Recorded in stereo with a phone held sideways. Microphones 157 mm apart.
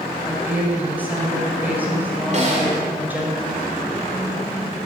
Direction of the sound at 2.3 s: 45° right (ahead or behind).